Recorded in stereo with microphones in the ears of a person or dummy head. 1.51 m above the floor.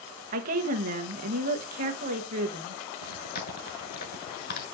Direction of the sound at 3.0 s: 55° left (ahead or behind).